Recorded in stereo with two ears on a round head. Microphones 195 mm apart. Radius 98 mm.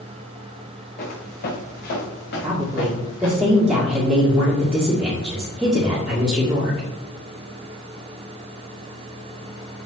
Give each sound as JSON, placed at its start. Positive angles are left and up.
{"t": 1.0, "sound": "footsteps", "side_deg": 45, "distance_m": 3.5}
{"t": 2.4, "sound": "a woman speaking", "side_deg": -5, "distance_m": 2.0}